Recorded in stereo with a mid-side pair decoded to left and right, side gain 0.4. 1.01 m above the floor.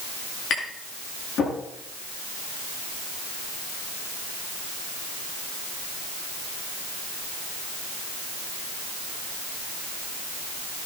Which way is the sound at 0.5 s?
65° left.